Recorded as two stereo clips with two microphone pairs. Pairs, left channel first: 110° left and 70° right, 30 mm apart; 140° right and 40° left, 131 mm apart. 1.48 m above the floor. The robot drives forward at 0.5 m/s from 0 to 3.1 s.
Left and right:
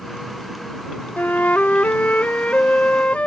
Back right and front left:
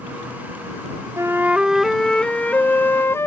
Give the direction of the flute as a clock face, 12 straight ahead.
8 o'clock.